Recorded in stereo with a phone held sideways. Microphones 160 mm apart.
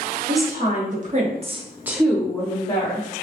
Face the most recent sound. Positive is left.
turn(degrees=40)  # may be behind; listen again after turning